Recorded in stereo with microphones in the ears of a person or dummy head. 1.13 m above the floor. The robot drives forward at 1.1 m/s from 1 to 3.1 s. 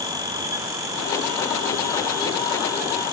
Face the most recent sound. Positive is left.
No sound to turn to.